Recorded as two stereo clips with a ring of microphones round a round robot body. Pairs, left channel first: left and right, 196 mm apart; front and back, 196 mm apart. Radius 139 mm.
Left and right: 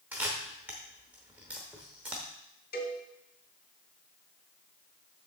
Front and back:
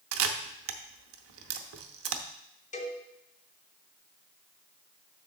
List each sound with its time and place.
0.1 s a camera shutter: 175° right, 0.7 m
2.7 s a cowbell: 50° left, 2 m